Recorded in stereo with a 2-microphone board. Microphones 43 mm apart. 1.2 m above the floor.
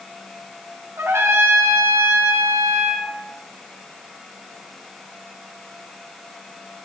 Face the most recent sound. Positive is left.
turn(degrees=-85)